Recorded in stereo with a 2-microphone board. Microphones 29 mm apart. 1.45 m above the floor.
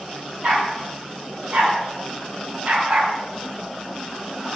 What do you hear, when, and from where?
0.4 s a dog barking: 55° right (ahead or behind), 3 m; by 3.1 s 45° right (ahead or behind), 2.5 m